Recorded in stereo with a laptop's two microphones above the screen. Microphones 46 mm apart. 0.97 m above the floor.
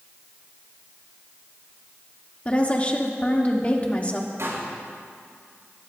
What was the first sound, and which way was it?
A woman speaking, 30° left (ahead or behind).